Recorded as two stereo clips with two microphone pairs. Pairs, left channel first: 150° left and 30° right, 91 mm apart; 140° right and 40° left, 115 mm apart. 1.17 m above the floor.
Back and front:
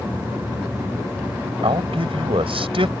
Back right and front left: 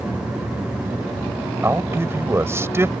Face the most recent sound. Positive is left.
turn(degrees=-25)